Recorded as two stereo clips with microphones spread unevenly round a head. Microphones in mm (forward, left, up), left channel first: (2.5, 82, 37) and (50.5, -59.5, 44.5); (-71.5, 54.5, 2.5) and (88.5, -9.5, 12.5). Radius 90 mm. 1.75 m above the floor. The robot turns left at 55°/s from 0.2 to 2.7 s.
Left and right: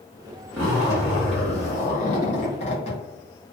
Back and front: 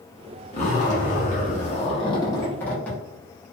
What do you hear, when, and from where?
0.5 s a zipper: 165° right, 0.9 m; by 3.0 s 75° left, 0.9 m